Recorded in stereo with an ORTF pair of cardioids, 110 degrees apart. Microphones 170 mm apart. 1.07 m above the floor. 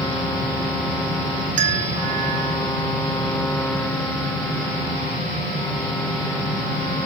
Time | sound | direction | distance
1.6 | a bell | 50° right | 0.7 m